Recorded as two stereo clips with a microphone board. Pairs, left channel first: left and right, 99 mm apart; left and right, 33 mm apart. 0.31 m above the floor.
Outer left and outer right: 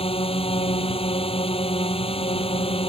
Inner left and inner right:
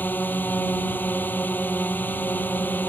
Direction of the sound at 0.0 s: 75° left (ahead or behind).